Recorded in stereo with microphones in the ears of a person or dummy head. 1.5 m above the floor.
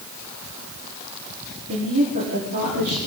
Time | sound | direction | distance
1.7 | a woman speaking | 50° right (ahead or behind) | 4.5 m